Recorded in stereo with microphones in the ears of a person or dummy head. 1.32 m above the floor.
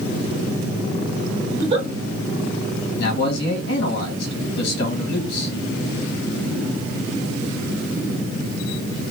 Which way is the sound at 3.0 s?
75° left (ahead or behind).